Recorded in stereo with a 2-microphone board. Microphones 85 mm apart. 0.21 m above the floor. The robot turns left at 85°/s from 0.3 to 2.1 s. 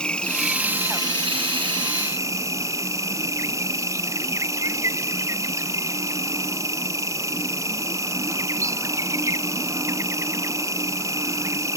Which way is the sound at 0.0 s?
10° left.